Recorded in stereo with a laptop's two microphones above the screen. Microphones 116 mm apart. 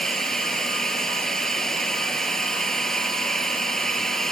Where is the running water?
5° left (ahead or behind).